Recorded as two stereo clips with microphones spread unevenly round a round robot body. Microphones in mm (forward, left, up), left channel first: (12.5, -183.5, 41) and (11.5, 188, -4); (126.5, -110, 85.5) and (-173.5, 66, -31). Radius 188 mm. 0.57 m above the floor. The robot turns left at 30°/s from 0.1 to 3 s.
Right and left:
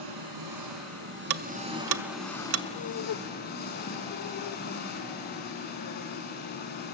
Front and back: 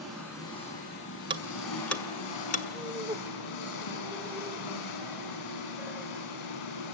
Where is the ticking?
85° left, 0.8 m; by 2.6 s 45° left, 0.8 m.